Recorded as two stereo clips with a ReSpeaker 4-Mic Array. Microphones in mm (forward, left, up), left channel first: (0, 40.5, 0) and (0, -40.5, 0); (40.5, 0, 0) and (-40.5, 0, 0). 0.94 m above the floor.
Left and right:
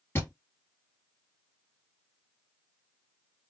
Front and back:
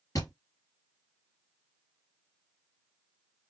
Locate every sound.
0.1 s a thud: 35° left, 1.9 m